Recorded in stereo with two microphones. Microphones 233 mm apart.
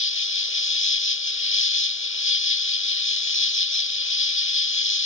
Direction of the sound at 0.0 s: 60° left (ahead or behind).